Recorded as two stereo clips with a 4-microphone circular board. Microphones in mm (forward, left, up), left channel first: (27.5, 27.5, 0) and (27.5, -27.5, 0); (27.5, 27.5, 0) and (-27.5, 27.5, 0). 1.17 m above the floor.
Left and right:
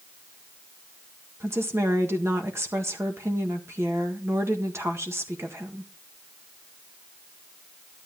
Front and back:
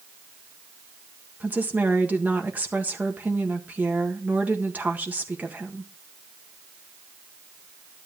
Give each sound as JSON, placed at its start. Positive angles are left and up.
{"t": 1.4, "sound": "a woman speaking", "azimuth_deg": -120, "distance_m": 1.6}